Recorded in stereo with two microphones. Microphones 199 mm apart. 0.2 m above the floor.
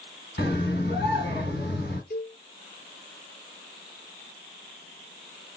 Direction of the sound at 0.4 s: 60° left (ahead or behind).